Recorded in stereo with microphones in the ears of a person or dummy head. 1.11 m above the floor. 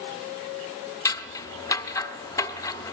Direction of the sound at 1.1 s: 20° left (ahead or behind).